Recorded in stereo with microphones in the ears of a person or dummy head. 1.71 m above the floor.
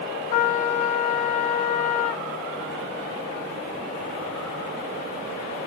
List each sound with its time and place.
0.3 s a trumpet: 40° left (ahead or behind), 0.6 m